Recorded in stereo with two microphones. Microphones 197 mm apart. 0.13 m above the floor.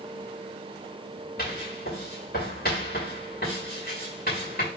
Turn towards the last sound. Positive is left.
turn(degrees=50)  # may be behind; listen again after turning